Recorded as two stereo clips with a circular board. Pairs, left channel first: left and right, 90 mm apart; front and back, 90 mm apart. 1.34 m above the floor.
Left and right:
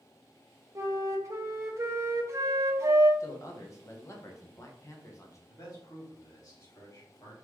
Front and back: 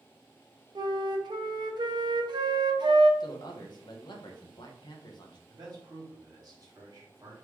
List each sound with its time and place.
0.8 s a flute: 145° right, 0.7 m
3.2 s a man speaking: 35° left, 1.0 m
5.5 s a man speaking: 135° left, 2 m